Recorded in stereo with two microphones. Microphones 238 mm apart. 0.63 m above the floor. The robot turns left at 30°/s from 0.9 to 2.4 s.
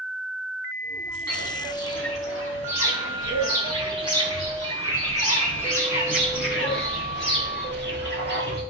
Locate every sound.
1.3 s footsteps: 80° left, 3.5 m; by 8.6 s 45° left (ahead or behind), 4.5 m